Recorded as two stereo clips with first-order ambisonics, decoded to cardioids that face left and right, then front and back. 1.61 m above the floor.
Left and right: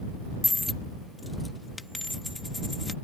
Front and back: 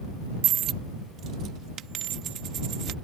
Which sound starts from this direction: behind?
A dropped coin, at 0.4 s.